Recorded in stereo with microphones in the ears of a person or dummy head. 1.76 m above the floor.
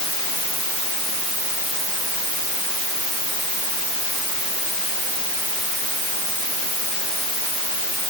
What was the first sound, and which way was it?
Only background noise.